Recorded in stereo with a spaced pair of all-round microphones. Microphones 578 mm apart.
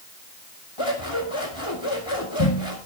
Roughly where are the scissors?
Left.